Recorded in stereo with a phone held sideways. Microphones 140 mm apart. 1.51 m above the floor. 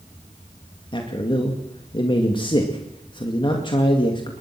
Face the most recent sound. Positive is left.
turn(degrees=35)  # may be behind; listen again after turning